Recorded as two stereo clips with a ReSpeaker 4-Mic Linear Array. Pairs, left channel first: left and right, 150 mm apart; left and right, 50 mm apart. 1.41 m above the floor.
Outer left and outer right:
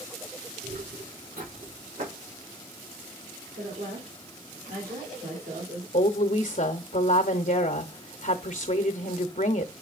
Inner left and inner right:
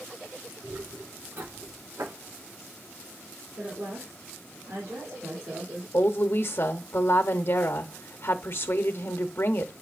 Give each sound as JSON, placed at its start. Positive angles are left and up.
{"t": 0.6, "sound": "footsteps", "side_deg": -70, "distance_m": 6.0}
{"t": 3.6, "sound": "a woman speaking", "side_deg": -80, "distance_m": 4.0}
{"t": 5.9, "sound": "a woman speaking", "side_deg": 55, "distance_m": 0.8}